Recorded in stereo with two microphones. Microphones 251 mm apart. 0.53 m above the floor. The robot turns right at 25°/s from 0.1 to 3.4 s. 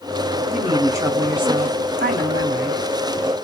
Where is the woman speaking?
Straight behind, 1.7 m; by 2.8 s 120° right, 1.7 m.